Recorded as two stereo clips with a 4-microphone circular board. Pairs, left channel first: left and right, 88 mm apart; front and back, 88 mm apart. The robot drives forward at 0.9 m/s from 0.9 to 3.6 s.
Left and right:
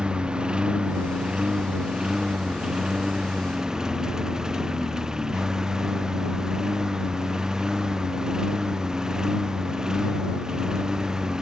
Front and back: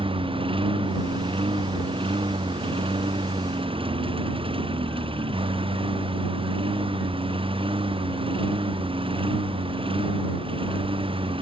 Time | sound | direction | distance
0.0 | a lawn mower | 170° right | ?